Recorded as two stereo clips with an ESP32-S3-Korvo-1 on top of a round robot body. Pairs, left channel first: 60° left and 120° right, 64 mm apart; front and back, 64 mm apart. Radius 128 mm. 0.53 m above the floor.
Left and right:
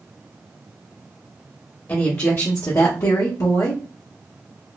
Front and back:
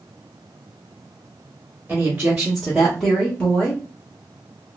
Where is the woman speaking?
115° left, 1.3 m; by 3.8 s 60° left, 1.3 m.